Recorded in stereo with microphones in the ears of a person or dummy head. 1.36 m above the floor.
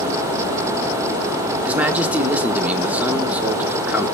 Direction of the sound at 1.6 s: 10° right (ahead or behind).